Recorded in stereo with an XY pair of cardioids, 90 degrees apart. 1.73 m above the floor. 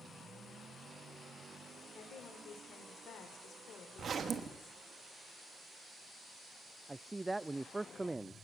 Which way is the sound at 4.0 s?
50° right.